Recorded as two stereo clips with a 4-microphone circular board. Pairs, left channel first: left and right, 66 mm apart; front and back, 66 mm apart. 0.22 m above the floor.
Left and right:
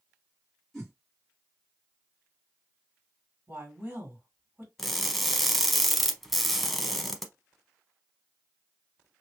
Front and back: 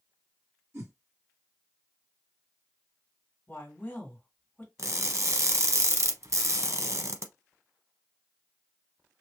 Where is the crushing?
Straight behind, 0.6 m.